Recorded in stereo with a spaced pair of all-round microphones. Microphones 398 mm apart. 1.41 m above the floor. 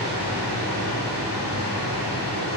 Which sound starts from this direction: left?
A machine running, at 0.0 s.